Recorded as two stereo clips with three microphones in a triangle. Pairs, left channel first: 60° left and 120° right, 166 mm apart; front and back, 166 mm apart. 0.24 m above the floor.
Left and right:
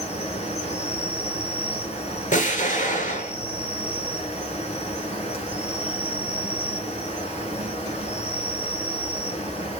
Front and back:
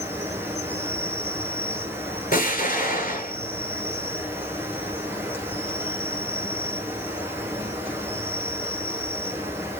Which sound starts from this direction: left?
An insect, at 0.0 s.